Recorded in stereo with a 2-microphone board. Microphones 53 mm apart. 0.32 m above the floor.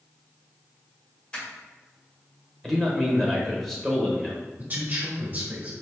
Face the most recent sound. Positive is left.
turn(degrees=-35)  # may be behind; listen again after turning